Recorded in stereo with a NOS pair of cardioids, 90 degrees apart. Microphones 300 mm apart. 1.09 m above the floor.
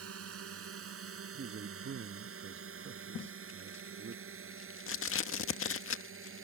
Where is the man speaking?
40° right.